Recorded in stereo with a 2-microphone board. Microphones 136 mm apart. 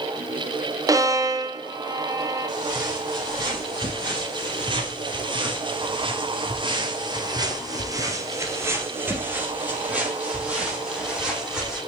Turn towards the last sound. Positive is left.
turn(degrees=-5)  # may be behind; listen again after turning